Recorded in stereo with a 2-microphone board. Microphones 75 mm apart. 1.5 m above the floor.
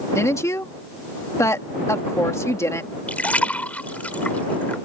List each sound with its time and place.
0.1 s a woman speaking: 40° left (ahead or behind)
3.1 s a splash: 20° left (ahead or behind)